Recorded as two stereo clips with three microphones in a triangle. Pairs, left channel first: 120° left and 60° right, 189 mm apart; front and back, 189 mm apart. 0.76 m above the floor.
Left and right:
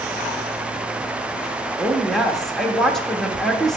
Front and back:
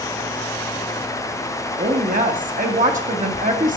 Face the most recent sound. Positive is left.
turn(degrees=-155)